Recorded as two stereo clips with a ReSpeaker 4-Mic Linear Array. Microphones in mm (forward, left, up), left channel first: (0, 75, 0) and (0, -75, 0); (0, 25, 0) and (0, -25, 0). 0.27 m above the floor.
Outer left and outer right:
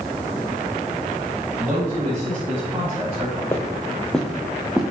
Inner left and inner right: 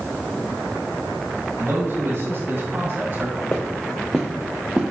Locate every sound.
1.6 s a man speaking: 60° right (ahead or behind), 2.5 m; by 3.4 s 40° right (ahead or behind), 1.8 m
3.5 s footsteps: 20° left (ahead or behind), 1.4 m; by 4.9 s 10° right (ahead or behind), 1.7 m